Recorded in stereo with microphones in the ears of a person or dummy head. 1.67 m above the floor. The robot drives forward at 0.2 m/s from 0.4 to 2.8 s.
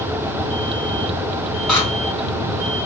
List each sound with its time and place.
1.7 s scissors: 5° left (ahead or behind), 1.0 m